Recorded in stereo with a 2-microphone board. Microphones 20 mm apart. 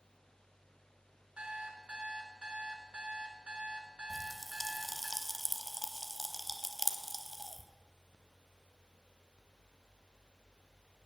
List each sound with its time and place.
1.4 s an alarm clock: 60° right (ahead or behind), 1.8 m
4.1 s a pop: centre (ahead or behind), 1.1 m